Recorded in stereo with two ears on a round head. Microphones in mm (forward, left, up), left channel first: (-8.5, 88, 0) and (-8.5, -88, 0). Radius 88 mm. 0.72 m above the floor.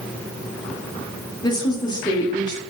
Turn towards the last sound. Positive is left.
turn(degrees=20)  # may be behind; listen again after turning